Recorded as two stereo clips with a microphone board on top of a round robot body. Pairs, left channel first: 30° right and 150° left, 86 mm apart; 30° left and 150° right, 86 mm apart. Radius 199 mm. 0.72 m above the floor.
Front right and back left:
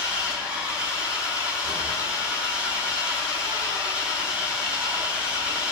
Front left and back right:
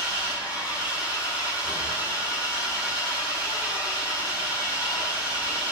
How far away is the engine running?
About 6.5 m.